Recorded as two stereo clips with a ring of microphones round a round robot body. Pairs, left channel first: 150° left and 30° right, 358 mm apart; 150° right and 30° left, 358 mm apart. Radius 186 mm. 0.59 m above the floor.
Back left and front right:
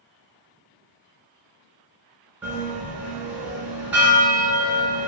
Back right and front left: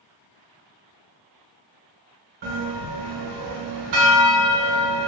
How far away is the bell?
About 1.1 m.